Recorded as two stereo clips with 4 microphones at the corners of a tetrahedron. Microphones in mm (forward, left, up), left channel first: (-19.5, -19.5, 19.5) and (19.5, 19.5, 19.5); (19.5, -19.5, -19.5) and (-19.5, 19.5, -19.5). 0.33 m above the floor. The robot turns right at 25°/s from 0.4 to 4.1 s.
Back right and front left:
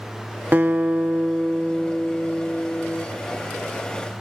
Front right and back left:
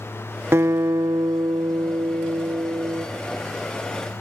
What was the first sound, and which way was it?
A guitar, 95° left.